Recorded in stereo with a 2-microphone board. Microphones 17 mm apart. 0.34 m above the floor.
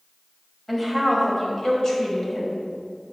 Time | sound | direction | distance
0.7 | a woman speaking | 10° left (ahead or behind) | 1.7 m